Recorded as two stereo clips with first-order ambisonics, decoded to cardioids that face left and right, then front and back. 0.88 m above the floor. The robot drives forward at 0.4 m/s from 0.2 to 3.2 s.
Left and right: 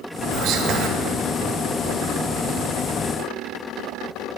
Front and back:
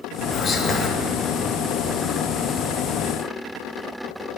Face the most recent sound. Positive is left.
turn(degrees=-140)